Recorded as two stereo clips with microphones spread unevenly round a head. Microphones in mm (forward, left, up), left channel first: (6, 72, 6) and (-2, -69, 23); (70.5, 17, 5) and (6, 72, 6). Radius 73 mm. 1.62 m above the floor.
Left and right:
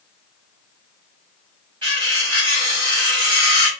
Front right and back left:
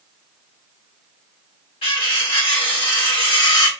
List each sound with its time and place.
1.8 s cutlery clinking: 35° right, 3.5 m